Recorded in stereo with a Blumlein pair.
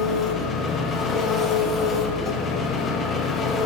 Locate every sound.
0.0 s an engine running: 20° left, 0.8 m